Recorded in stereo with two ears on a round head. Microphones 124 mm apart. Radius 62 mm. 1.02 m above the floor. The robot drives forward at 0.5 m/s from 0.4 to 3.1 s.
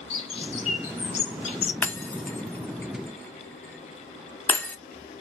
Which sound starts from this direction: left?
A bird, at 0.1 s.